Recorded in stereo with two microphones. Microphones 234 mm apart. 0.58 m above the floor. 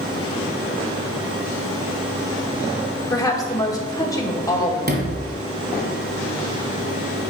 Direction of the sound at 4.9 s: 40° right (ahead or behind).